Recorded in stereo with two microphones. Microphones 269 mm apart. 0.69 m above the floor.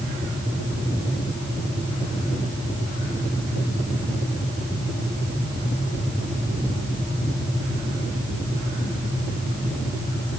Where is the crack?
No crack in this recording.